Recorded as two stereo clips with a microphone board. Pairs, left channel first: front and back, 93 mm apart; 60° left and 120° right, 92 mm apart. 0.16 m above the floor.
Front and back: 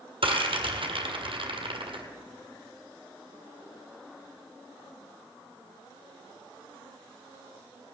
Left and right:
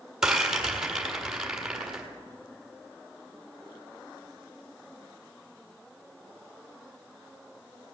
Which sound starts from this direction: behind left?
A rattle, at 0.2 s.